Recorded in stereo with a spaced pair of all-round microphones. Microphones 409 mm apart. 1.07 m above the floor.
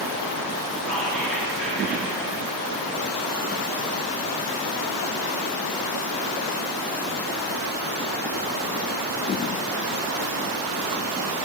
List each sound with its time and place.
0.9 s whispering: centre (ahead or behind), 2.5 m